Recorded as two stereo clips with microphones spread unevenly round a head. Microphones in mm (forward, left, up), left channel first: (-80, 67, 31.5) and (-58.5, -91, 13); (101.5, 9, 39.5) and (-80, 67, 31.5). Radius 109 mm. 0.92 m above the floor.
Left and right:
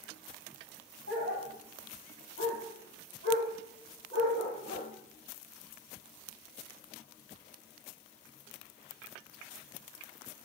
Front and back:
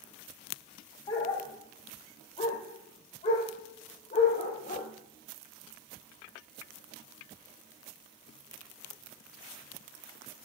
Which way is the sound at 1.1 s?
45° left.